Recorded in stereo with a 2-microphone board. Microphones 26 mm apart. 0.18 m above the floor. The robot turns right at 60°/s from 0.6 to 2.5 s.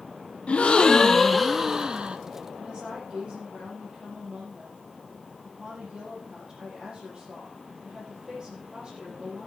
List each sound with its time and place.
0.5 s a gasp: 130° left, 0.9 m; by 2.2 s 135° right, 0.9 m
2.6 s a woman speaking: 35° right (ahead or behind), 8 m